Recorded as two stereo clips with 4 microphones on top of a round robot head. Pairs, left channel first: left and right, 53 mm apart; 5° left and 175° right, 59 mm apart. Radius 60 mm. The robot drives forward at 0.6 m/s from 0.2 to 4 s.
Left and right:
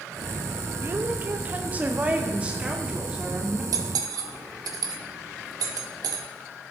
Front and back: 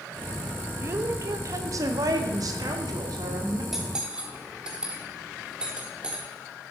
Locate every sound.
0.8 s a woman speaking: 135° right, 0.8 m; by 3.6 s 165° right, 2.5 m
3.7 s cutlery clinking: 90° right, 1.1 m; by 6.2 s 100° right, 1.1 m